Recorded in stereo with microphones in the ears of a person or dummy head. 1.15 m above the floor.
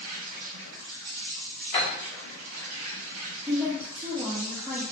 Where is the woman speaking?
15° right (ahead or behind), 0.9 m.